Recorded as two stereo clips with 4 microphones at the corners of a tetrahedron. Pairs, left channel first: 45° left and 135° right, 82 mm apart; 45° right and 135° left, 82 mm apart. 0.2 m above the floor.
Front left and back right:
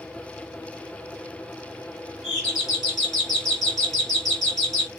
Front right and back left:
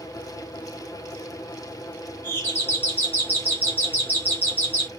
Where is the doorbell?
50° right, 1.8 m.